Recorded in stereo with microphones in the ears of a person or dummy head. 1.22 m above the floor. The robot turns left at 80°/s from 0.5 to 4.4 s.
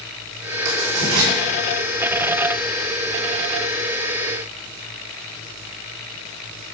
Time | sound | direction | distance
0.7 | writing | 60° right (ahead or behind) | 3.5 m